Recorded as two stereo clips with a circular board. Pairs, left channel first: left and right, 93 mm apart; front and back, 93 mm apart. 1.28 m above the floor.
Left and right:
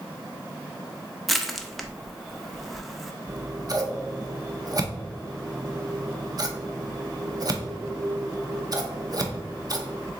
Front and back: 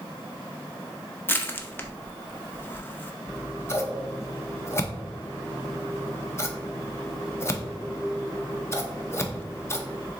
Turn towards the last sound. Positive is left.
turn(degrees=-55)